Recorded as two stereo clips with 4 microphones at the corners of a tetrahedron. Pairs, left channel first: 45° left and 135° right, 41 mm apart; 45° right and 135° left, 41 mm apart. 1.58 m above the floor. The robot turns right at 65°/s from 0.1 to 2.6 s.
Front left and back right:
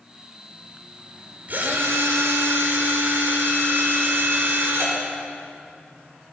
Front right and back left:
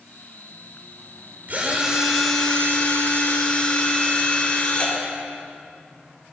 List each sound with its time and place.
1.5 s a drill: 175° left, 5.5 m; by 5.0 s 110° right, 5.5 m